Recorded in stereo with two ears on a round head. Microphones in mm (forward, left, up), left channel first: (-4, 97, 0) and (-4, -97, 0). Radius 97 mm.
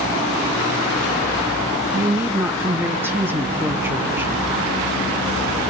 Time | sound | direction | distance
1.9 | a woman speaking | 10° right (ahead or behind) | 1.2 m